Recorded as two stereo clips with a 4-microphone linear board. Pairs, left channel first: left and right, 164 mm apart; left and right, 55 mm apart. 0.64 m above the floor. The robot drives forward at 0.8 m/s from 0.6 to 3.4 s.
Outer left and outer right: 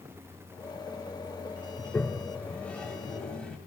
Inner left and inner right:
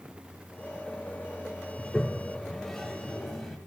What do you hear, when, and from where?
1.8 s a toilet flushing: 10° left (ahead or behind), 1.1 m; by 3.6 s 5° left (ahead or behind), 2.5 m